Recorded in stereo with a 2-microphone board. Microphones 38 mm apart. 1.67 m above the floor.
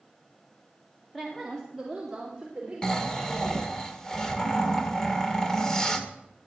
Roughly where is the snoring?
Centre.